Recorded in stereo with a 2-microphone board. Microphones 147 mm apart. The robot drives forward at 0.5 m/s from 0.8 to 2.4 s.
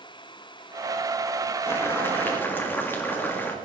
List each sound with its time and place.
1.7 s boiling: 15° left (ahead or behind), 1.5 m